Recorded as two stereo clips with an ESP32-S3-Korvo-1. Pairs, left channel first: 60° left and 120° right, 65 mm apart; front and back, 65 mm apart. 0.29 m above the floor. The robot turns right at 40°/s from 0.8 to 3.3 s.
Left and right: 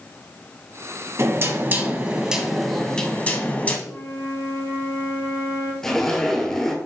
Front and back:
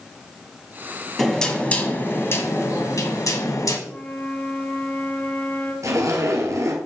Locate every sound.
1.2 s knocking: 85° right, 1.4 m; by 3.8 s 5° right, 1.4 m
3.9 s a flute: 65° left, 5.5 m
5.8 s a zipper: 140° left, 1.6 m